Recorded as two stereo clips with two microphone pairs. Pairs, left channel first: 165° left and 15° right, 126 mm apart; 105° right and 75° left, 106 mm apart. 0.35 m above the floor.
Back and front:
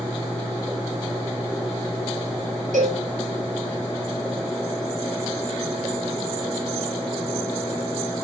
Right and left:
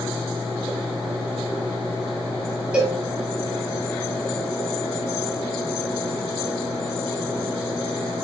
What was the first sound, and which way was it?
A cowbell, 5° right.